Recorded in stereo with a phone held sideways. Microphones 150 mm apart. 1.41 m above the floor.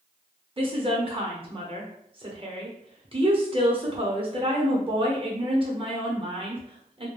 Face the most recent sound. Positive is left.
turn(degrees=-35)  # may be behind; listen again after turning